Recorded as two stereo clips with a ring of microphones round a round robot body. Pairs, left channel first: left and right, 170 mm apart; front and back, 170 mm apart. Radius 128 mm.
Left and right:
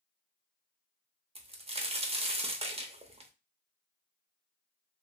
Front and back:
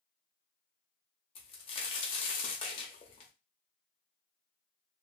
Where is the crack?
45° right, 0.9 m.